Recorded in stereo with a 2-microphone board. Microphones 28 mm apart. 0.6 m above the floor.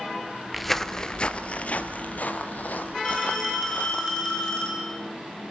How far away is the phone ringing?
About 6 m.